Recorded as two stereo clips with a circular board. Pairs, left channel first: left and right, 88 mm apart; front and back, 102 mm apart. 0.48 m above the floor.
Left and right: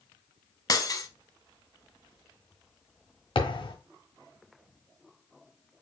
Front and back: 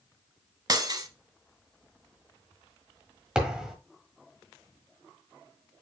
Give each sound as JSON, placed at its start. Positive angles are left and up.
{"t": 0.7, "sound": "breaking glass", "azimuth_deg": 135, "distance_m": 0.7}
{"t": 3.4, "sound": "a thud", "azimuth_deg": 95, "distance_m": 1.3}